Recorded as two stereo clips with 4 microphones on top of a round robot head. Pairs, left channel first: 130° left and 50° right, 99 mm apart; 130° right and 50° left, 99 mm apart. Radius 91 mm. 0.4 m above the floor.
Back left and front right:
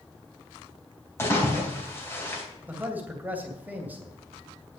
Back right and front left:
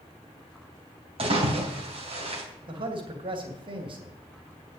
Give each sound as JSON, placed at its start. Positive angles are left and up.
{"t": 1.2, "sound": "a splash", "azimuth_deg": 65, "distance_m": 3.5}
{"t": 2.7, "sound": "a man speaking", "azimuth_deg": 25, "distance_m": 2.5}